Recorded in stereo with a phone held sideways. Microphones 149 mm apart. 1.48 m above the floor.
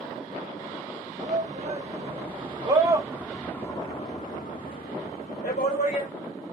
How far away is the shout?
About 1.3 m.